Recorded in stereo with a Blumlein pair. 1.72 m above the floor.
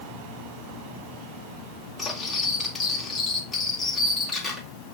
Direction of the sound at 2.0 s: 10° left.